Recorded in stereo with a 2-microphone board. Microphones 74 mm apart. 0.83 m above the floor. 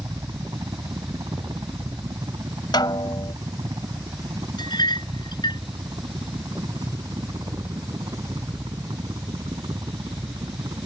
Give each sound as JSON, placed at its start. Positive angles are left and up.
{"t": 0.0, "sound": "a helicopter", "side_deg": -60}
{"t": 2.7, "sound": "a snare drum", "side_deg": 75}
{"t": 4.6, "sound": "a clink", "side_deg": 75}